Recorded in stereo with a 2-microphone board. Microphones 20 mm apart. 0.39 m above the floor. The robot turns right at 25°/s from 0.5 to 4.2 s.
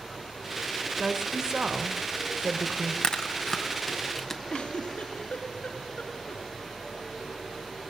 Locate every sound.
1.0 s a woman speaking: 130° right, 1.8 m; by 2.9 s 80° right, 1.8 m
3.0 s chewing: 45° left (ahead or behind), 1.9 m; by 4.4 s 20° left (ahead or behind), 1.9 m
4.5 s a giggle: 65° left (ahead or behind), 4.5 m